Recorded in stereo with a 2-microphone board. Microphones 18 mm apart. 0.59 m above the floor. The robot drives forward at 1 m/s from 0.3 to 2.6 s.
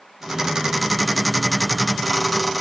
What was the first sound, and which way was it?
Only background noise.